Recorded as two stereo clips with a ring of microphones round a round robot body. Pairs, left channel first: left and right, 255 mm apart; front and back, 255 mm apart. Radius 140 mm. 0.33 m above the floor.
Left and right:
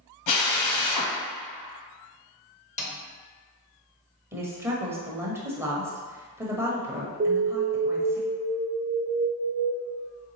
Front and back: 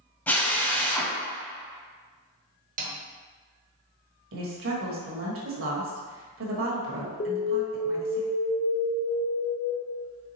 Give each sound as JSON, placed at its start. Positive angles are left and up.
{"t": 0.3, "sound": "a drill", "azimuth_deg": 85, "distance_m": 1.4}
{"t": 2.8, "sound": "a snare drum", "azimuth_deg": 140, "distance_m": 0.9}
{"t": 4.3, "sound": "a woman speaking", "azimuth_deg": -165, "distance_m": 1.3}
{"t": 7.2, "sound": "an alarm", "azimuth_deg": -40, "distance_m": 0.7}